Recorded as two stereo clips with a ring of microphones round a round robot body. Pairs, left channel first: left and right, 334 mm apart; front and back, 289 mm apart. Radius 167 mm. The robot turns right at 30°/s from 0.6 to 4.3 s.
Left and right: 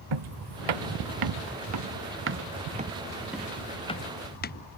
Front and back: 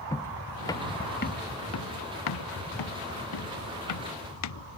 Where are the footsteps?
80° right; by 4.6 s 25° left.